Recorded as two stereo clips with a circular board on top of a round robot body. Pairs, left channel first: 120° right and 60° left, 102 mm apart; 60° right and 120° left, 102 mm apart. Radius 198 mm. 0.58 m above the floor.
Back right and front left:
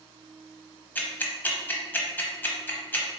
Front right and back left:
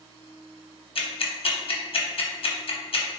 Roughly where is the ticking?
Ahead right.